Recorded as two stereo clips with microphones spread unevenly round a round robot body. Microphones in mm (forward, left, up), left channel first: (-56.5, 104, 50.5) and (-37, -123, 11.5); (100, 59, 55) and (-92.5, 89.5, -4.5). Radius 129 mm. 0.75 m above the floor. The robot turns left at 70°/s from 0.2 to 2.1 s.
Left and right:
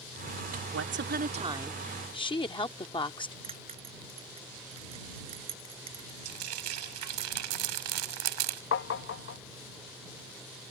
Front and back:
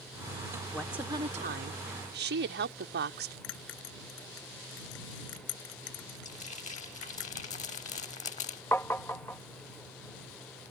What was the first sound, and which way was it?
A woman speaking, 95° right.